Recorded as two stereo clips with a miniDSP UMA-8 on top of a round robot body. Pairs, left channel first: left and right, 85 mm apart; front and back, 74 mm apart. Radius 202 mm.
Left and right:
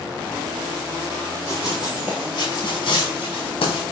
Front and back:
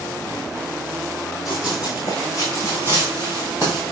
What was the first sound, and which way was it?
Running footsteps, 90° right.